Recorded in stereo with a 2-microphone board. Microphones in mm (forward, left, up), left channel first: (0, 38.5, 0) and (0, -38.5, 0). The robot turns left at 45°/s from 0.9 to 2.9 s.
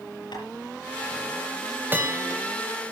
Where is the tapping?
75° left (ahead or behind), 6.5 m.